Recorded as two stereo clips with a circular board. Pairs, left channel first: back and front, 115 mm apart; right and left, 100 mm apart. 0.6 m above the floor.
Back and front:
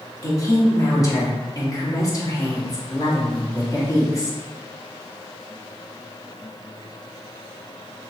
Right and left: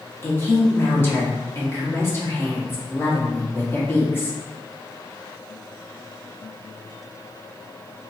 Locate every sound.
0.2 s a woman speaking: 145° right, 1.1 m